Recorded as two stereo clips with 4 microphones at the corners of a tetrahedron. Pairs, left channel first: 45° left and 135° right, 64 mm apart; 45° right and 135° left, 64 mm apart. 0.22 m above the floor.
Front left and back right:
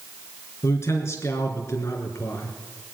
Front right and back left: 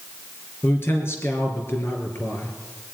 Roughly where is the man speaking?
Ahead.